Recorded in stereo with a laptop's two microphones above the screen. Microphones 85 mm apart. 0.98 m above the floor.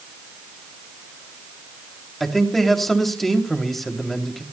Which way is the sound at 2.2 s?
Centre (ahead or behind).